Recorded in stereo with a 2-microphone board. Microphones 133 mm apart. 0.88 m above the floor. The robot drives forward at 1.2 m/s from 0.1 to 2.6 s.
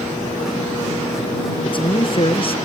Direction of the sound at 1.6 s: 40° left (ahead or behind).